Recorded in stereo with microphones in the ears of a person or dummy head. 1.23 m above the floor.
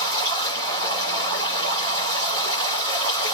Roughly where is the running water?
Right.